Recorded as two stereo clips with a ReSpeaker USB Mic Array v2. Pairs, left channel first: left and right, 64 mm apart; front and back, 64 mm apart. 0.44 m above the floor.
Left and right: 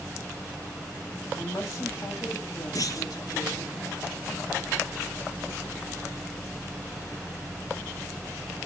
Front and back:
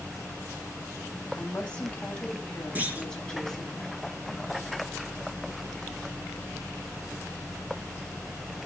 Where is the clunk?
115° left, 2.5 m.